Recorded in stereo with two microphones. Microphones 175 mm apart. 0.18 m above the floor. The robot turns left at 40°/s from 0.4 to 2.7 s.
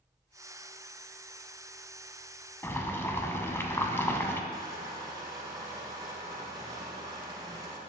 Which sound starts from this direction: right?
Crushing, at 4.5 s.